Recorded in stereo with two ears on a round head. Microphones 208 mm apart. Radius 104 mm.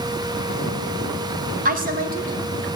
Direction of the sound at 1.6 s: 40° right (ahead or behind).